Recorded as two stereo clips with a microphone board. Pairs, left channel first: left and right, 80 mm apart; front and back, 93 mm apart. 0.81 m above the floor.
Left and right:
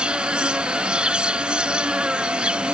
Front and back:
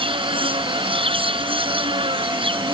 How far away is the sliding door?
I don't hear a sliding door.